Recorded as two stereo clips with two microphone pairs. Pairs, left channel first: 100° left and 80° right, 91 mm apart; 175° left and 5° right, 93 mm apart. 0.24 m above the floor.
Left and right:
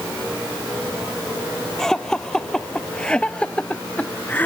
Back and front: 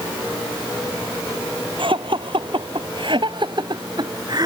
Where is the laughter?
15° left; by 4.5 s 35° left.